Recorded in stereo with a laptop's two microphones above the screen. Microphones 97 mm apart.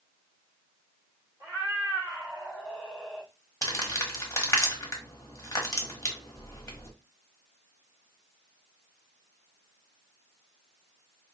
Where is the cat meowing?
40° right (ahead or behind), 1.8 m; by 3.3 s 10° left (ahead or behind), 0.7 m.